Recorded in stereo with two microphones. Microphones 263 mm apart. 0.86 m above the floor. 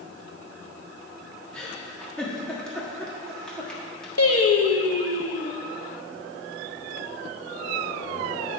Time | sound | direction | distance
1.5 | a giggle | 5° left (ahead or behind) | 1.6 m
4.2 | singing | 65° left (ahead or behind) | 0.8 m